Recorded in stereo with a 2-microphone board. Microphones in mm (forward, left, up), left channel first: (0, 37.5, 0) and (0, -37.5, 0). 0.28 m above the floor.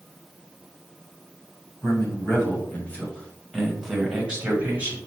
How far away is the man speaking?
About 1.9 m.